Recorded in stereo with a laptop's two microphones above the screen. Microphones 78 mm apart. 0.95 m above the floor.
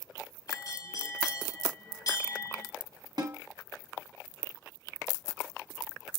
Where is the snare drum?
60° right (ahead or behind), 0.9 m.